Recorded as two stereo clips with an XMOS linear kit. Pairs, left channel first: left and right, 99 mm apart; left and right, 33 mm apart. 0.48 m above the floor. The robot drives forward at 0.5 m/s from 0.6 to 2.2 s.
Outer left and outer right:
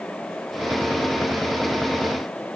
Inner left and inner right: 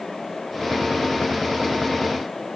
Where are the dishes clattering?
I don't hear dishes clattering.